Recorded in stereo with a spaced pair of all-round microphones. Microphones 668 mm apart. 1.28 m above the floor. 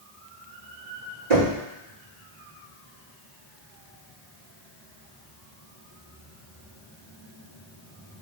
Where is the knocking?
75° right (ahead or behind), 2.0 m.